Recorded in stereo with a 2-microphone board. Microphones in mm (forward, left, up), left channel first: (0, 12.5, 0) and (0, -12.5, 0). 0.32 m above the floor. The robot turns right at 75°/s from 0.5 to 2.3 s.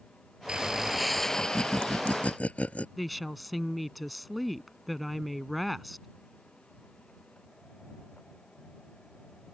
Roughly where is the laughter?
Ahead right.